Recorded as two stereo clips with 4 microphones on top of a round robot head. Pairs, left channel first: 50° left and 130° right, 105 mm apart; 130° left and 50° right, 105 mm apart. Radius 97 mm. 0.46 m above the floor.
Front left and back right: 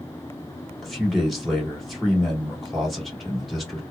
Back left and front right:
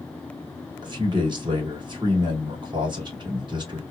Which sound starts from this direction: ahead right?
A man speaking, at 0.8 s.